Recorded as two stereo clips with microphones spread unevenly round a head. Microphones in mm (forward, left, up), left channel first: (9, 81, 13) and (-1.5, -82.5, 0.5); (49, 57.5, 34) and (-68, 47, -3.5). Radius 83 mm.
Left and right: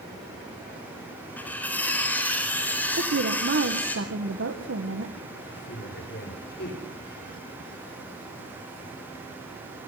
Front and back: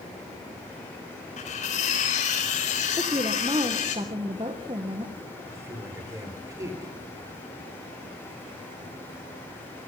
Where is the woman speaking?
110° right, 1.7 m.